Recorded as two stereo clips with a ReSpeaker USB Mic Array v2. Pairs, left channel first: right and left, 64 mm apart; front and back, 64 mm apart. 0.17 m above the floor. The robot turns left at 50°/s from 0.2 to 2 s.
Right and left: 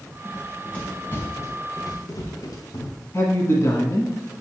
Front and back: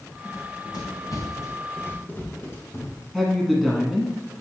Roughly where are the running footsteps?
Ahead.